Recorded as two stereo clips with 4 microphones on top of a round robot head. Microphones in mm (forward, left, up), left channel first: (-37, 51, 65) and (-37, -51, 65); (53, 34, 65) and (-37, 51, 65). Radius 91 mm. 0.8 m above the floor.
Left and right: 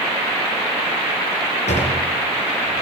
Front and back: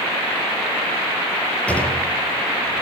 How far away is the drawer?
About 6 m.